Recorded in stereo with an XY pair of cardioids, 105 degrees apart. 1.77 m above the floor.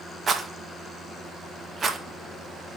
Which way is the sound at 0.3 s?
40° right.